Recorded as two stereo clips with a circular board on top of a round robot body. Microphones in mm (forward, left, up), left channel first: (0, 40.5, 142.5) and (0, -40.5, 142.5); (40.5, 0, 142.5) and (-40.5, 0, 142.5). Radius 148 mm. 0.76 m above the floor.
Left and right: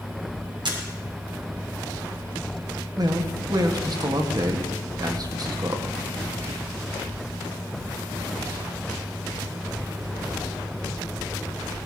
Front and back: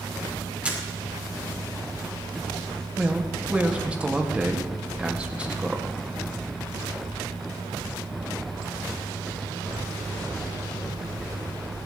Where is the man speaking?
110° right, 1.9 m.